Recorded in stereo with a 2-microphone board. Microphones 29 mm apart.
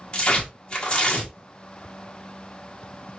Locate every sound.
0.1 s tearing paper: 30° left (ahead or behind), 1.5 m